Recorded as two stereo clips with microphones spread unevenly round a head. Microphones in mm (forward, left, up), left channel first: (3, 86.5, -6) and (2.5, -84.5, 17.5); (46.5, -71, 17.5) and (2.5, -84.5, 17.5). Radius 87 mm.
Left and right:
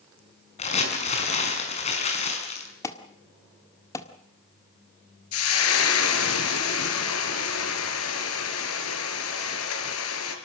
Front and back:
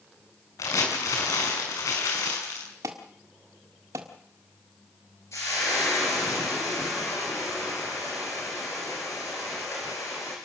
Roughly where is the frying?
Left.